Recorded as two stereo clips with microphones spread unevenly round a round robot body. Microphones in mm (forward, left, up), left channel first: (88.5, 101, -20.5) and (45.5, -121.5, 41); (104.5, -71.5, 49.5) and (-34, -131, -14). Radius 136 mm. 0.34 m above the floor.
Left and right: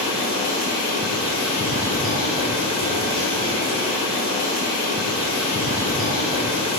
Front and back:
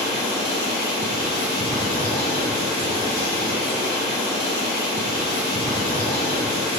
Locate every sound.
0.0 s running water: 95° left, 1.5 m